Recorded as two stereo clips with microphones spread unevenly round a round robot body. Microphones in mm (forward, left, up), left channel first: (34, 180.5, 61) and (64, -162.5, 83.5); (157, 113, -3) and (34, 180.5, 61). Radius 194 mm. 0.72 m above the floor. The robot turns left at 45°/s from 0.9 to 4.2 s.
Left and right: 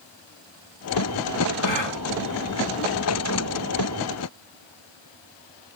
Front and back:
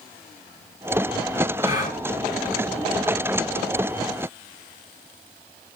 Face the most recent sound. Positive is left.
turn(degrees=-20)